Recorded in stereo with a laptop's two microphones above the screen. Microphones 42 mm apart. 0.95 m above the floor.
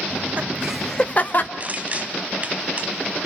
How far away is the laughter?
About 1.2 m.